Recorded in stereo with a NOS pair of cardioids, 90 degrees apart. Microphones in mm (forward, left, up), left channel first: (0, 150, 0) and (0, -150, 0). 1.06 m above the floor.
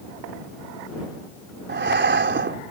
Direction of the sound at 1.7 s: 35° right.